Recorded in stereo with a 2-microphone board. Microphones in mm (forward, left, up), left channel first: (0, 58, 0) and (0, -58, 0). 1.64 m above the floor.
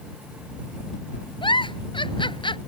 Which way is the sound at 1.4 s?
50° left (ahead or behind).